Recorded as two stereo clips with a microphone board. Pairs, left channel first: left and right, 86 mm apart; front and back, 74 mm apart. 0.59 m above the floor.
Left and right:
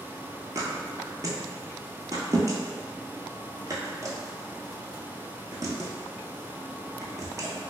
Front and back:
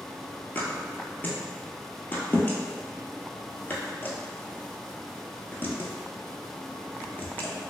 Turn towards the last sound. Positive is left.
turn(degrees=-55)